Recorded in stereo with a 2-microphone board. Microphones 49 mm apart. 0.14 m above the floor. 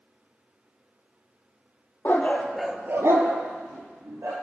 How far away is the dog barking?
About 1.0 m.